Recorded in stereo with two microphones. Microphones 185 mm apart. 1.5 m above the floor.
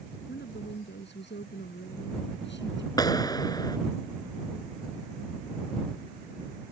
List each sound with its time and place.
0.3 s a woman speaking: 70° left (ahead or behind); by 2.9 s 80° left
3.0 s a clap: 20° left (ahead or behind)